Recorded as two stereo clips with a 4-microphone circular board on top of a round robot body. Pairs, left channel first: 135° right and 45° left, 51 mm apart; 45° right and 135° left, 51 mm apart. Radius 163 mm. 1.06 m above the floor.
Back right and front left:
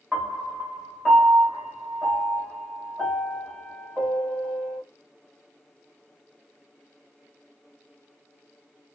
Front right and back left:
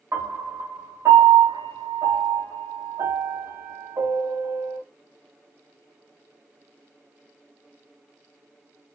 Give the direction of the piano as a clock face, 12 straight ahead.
7 o'clock.